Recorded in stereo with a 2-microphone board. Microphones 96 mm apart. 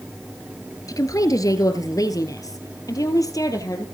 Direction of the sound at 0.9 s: 40° left (ahead or behind).